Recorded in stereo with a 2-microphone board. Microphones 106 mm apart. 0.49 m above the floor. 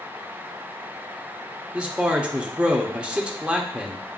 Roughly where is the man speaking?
Centre.